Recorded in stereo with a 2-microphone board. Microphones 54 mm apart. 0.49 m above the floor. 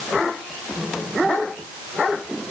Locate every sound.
Only background noise.